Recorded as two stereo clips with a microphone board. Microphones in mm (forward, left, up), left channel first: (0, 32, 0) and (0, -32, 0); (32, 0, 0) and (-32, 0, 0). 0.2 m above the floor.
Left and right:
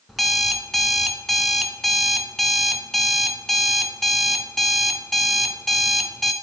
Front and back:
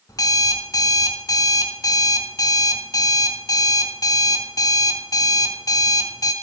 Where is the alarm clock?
Straight ahead, 1.3 m.